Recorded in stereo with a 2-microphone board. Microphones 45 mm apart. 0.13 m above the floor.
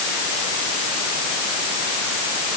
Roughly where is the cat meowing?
No cat meowing in this recording.